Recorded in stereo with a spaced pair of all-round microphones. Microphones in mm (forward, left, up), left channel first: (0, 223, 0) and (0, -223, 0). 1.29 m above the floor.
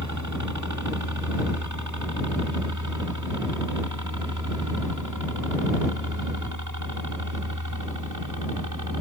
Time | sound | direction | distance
0.0 | a helicopter | 40° right (ahead or behind) | ?